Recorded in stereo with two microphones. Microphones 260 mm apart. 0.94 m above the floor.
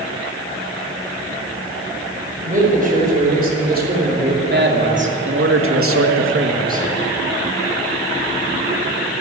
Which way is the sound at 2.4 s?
30° right (ahead or behind).